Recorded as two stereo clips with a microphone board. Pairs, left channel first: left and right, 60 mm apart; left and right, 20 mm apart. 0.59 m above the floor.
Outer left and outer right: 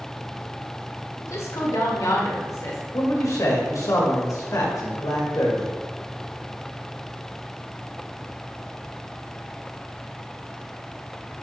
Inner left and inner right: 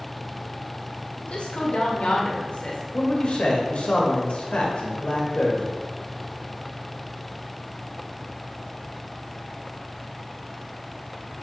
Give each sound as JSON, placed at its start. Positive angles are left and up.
{"t": 1.2, "sound": "a woman speaking", "side_deg": 65, "distance_m": 1.6}
{"t": 2.9, "sound": "a man speaking", "side_deg": 65, "distance_m": 2.0}